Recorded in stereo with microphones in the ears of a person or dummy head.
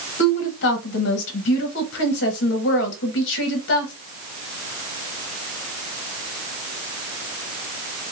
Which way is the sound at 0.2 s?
70° left (ahead or behind).